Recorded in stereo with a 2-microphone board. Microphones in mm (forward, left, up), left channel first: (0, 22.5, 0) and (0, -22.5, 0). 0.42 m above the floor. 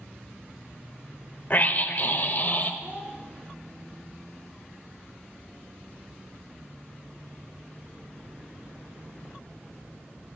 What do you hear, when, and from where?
1.5 s a scream: 45° left (ahead or behind), 1.5 m; by 2.7 s 50° left (ahead or behind), 1.9 m
2.8 s a child speaking: 45° right (ahead or behind), 9.5 m